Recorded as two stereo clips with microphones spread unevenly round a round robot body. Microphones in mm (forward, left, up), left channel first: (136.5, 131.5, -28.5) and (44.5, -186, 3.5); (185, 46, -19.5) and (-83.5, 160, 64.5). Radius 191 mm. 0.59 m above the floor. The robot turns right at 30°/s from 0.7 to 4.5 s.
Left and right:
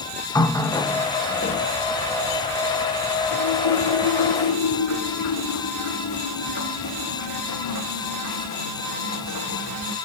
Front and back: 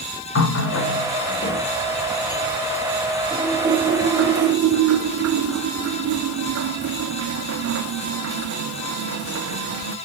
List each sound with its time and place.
0.3 s a running tap: 5° right, 1.0 m; by 10.0 s 110° left, 1.0 m